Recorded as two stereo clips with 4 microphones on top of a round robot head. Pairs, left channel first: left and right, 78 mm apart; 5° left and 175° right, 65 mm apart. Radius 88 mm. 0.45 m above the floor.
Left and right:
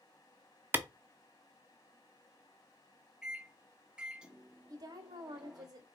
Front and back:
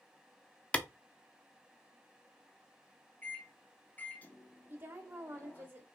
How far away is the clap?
About 0.7 m.